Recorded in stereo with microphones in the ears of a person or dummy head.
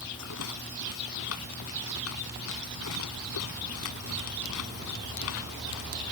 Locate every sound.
0.2 s a rattle: 85° left